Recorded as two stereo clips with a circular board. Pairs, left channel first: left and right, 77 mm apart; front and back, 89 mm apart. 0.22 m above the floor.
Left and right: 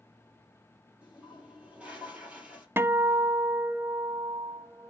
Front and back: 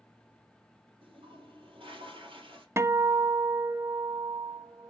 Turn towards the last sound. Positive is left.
turn(degrees=-135)